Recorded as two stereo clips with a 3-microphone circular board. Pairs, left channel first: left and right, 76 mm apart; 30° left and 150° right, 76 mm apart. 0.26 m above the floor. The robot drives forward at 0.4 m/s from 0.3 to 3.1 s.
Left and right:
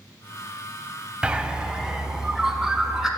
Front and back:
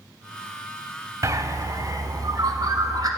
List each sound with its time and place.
1.2 s a bird: 160° right, 0.5 m; by 3.1 s 175° right, 1.2 m